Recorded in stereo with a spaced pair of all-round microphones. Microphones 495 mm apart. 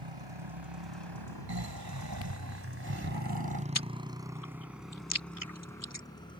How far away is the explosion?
No explosion in this recording.